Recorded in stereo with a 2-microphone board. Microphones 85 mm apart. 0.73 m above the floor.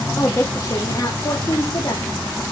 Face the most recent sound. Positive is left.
turn(degrees=60)  # may be behind; listen again after turning